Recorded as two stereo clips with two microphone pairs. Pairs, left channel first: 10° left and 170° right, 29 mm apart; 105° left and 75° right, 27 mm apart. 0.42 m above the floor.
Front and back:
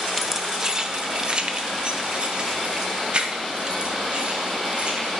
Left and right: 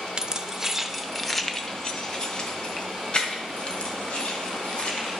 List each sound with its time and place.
0.2 s keys jangling: 100° right, 0.9 m; by 5.1 s 145° left, 3 m